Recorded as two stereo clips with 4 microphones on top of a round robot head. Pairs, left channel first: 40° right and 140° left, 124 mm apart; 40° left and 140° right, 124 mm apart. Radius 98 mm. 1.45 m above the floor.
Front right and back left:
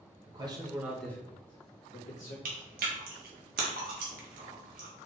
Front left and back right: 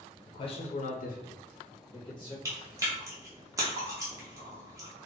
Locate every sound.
0.3 s a man speaking: 95° left, 1.1 m; by 2.4 s 15° right, 1.5 m
2.5 s chewing: 150° left, 0.8 m